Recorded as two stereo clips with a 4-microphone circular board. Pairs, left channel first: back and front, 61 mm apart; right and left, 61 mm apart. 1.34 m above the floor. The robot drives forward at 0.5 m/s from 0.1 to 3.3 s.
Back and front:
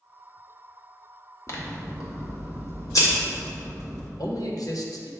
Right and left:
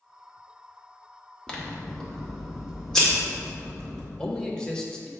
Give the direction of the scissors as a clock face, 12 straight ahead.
5 o'clock.